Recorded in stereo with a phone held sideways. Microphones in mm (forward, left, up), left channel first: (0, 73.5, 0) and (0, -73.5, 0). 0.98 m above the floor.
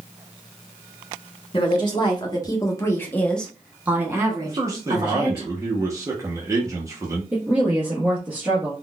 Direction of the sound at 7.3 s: 10° right (ahead or behind).